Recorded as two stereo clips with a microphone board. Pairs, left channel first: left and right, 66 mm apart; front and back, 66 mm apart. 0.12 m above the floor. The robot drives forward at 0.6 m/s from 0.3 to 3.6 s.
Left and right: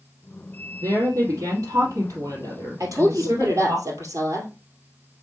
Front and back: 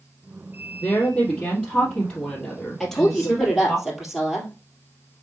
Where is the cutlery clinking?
No cutlery clinking in this recording.